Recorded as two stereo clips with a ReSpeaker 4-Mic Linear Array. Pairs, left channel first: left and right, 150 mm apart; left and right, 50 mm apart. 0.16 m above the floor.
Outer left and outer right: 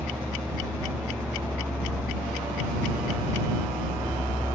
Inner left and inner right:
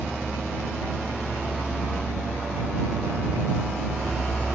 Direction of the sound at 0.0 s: 15° right (ahead or behind).